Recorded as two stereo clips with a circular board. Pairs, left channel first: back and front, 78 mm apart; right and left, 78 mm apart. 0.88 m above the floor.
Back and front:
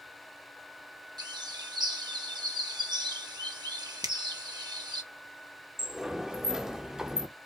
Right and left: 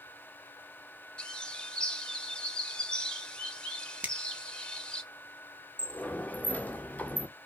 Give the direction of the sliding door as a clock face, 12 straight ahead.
2 o'clock.